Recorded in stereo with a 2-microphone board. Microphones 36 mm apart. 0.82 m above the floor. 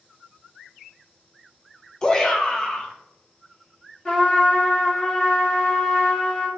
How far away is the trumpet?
About 1.6 m.